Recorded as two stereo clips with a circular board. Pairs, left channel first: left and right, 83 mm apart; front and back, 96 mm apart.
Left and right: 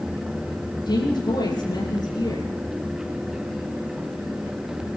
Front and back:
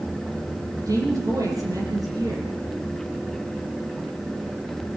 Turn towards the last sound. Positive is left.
turn(degrees=125)